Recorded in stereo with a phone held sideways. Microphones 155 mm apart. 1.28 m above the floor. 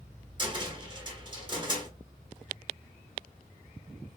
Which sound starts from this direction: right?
A cupboard door, at 0.4 s.